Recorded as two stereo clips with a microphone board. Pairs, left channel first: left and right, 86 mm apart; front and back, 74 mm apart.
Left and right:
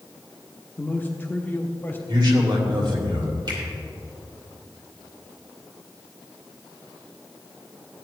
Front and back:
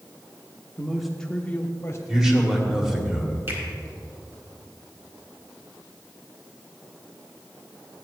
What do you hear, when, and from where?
0.8 s a man speaking: 125° left, 0.9 m; by 2.0 s 30° left, 1.2 m
2.1 s a man speaking: 100° right, 2 m
3.5 s a finger snap: 125° right, 4 m